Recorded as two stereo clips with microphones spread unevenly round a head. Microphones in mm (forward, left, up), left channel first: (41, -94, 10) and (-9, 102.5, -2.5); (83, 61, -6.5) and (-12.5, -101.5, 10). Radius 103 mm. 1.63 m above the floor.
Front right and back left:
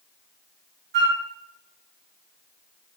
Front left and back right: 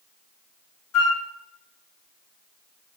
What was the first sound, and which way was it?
A flute, 65° left.